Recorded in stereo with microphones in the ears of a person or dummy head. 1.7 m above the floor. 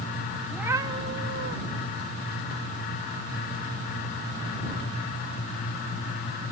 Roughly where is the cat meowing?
Centre.